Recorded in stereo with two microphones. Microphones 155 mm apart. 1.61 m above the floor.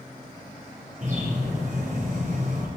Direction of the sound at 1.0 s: 60° right (ahead or behind).